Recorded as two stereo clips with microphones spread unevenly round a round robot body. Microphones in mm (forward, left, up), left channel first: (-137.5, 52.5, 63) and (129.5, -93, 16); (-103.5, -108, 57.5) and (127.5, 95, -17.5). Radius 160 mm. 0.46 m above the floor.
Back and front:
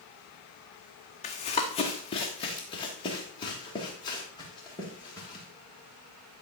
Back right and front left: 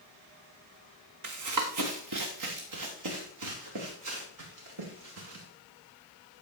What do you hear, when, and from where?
1.2 s running footsteps: 85° left, 1.8 m; by 5.4 s 75° left, 6 m